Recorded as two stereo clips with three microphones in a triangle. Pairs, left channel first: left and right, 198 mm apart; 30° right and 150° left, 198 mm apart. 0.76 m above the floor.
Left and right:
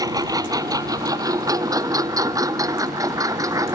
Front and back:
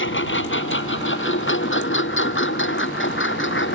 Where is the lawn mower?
20° right; by 3.8 s 15° right.